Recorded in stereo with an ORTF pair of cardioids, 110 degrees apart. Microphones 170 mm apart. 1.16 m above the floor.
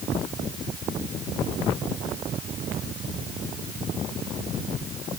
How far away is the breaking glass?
I don't hear breaking glass.